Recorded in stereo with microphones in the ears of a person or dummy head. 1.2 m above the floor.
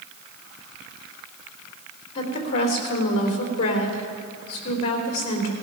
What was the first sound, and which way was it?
A woman speaking, 30° left (ahead or behind).